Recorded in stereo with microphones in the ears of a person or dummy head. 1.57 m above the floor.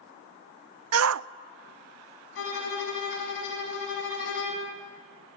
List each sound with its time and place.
0.9 s a shout: 80° right, 0.5 m
2.4 s a violin: 80° left, 5.5 m